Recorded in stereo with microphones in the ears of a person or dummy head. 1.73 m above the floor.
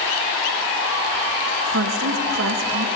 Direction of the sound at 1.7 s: 80° right.